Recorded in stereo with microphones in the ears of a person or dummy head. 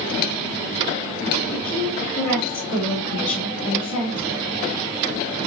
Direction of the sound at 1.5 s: 40° left (ahead or behind).